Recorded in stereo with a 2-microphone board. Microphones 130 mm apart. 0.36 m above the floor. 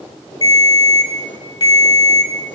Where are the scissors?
I don't hear scissors.